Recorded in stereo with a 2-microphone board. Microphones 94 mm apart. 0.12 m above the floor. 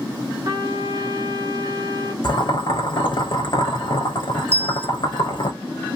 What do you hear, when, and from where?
0.5 s a trumpet: 45° right (ahead or behind), 1.0 m
2.2 s boiling: 50° left (ahead or behind), 0.9 m
4.5 s a bell: 25° right (ahead or behind), 1.5 m